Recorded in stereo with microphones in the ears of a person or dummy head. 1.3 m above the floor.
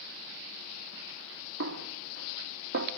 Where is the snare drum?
60° right (ahead or behind), 1.5 m.